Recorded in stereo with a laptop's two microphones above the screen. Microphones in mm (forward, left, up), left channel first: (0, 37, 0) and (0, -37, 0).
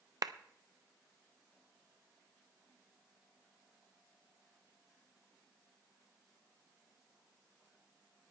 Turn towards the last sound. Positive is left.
turn(degrees=-60)  # may be behind; listen again after turning